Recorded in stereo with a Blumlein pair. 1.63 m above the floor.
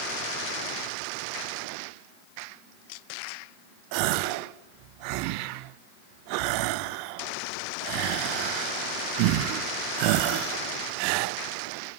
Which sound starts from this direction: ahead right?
A gasp, at 3.9 s.